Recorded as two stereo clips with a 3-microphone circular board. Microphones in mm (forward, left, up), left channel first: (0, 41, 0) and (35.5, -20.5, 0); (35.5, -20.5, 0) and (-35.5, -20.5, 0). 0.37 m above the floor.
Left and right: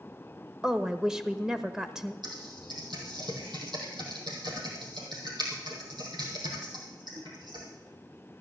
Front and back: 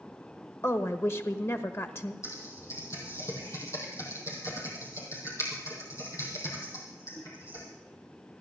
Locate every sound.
0.6 s a woman speaking: 20° left, 1.0 m
2.2 s typing on a keyboard: 50° right, 4 m